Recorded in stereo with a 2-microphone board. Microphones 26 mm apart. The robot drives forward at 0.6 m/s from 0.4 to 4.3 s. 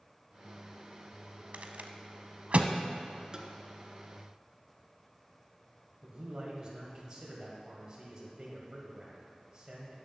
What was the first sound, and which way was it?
A rattle, 60° right (ahead or behind).